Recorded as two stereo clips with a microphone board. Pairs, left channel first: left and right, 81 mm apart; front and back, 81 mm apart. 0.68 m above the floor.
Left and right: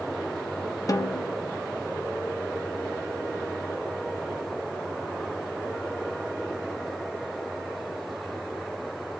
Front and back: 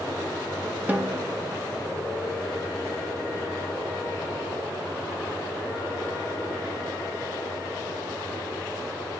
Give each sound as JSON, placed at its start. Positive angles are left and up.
{"t": 0.9, "sound": "a snare drum", "azimuth_deg": 115, "distance_m": 0.7}